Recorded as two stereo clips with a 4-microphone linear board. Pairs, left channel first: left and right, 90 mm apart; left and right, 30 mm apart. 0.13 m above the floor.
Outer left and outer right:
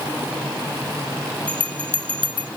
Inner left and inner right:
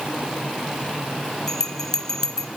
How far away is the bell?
About 0.6 m.